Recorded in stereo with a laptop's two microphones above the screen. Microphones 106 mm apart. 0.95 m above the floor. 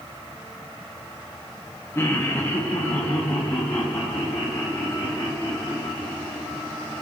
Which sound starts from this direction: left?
Laughter, at 1.9 s.